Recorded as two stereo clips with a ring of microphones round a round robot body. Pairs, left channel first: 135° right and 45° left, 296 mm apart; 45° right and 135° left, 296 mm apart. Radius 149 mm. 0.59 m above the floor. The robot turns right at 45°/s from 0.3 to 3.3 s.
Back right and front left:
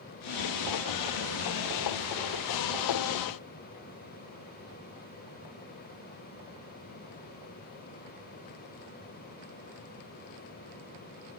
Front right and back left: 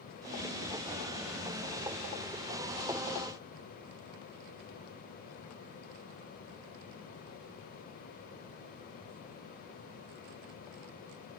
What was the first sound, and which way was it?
Only background noise.